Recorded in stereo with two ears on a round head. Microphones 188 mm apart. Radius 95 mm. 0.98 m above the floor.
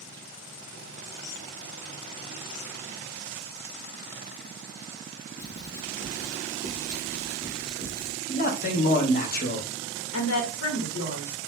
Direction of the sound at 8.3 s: 45° left (ahead or behind).